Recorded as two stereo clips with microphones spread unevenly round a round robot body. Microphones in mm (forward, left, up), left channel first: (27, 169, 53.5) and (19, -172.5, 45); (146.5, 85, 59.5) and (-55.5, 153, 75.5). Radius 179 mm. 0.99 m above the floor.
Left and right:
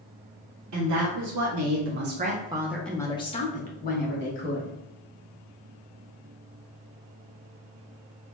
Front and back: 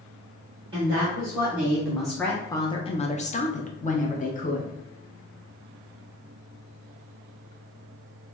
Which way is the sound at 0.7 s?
130° right.